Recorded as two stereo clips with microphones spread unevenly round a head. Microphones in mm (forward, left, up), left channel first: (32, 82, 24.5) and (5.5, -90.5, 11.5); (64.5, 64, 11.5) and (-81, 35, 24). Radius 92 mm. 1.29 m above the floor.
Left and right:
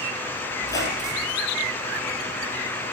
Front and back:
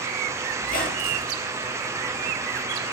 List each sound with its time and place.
0.6 s a squeak: 20° left, 1.9 m